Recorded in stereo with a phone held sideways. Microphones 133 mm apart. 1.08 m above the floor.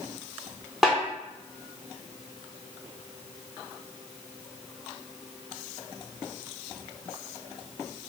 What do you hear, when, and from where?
0.8 s a snare drum: centre (ahead or behind), 0.7 m